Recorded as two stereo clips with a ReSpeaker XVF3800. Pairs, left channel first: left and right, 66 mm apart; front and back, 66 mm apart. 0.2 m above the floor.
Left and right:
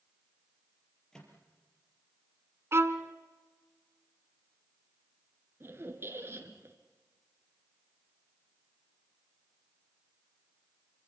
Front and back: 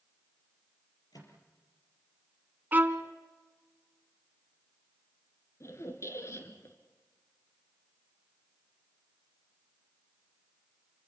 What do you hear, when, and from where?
1.1 s a microwave: 10° left, 5 m
2.7 s a violin: 125° right, 1.2 m
5.6 s a squeak: 40° right, 2 m